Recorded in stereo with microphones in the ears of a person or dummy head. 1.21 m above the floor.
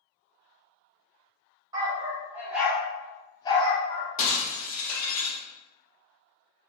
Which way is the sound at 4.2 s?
45° left (ahead or behind).